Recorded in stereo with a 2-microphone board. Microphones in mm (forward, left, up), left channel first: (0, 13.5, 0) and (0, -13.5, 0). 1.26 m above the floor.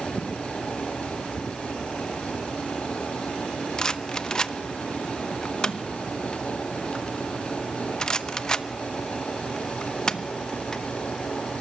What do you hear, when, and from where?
3.8 s a rattle: 25° left (ahead or behind), 0.8 m